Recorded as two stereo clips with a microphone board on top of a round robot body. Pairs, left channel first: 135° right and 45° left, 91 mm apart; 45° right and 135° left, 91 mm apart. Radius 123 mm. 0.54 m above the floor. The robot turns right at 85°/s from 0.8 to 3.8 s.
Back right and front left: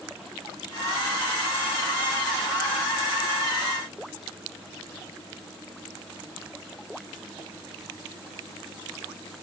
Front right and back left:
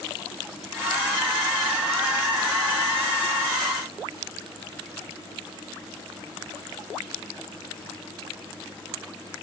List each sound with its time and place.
Only background noise.